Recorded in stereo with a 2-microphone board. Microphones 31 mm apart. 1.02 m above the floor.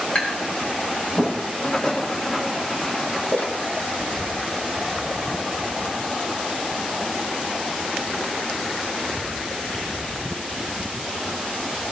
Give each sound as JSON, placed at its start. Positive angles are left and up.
{"t": 0.1, "sound": "tapping", "side_deg": 40, "distance_m": 4.5}
{"t": 1.6, "sound": "writing", "side_deg": 30, "distance_m": 3.0}
{"t": 3.3, "sound": "a splash", "side_deg": 60, "distance_m": 1.7}